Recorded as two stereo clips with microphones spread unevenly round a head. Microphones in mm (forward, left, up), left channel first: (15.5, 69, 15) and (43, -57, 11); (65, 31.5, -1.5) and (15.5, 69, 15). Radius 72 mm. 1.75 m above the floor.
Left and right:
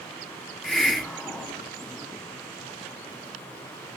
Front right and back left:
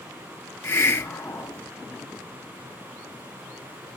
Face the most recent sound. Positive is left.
turn(degrees=15)